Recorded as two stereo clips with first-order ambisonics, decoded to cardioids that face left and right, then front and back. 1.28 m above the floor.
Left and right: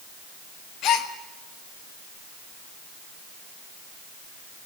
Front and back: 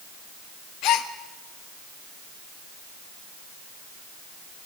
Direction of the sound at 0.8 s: 40° left.